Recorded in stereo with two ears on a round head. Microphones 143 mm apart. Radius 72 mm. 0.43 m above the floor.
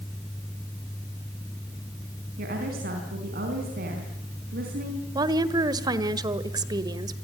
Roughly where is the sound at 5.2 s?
Right.